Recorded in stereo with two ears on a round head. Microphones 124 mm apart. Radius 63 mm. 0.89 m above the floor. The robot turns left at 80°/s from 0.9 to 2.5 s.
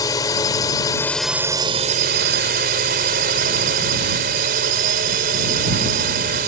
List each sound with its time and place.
0.0 s a drone: 25° left; by 6.5 s 100° right